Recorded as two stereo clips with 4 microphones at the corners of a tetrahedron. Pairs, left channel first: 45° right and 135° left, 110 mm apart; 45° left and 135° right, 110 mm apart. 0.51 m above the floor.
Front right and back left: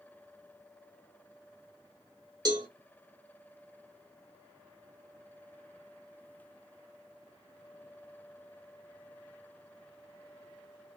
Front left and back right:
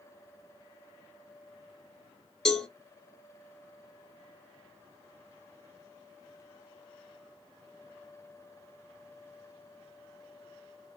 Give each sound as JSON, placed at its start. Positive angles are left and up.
{"t": 2.5, "sound": "a cowbell", "azimuth_deg": 125, "distance_m": 1.2}